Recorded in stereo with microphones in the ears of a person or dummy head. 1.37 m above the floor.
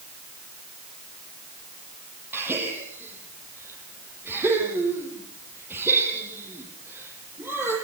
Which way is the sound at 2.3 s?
15° right (ahead or behind).